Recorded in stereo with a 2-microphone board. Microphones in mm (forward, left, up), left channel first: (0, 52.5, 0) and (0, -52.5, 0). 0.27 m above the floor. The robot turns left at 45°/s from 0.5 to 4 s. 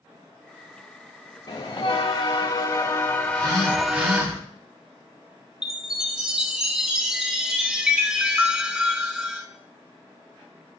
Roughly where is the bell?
Left.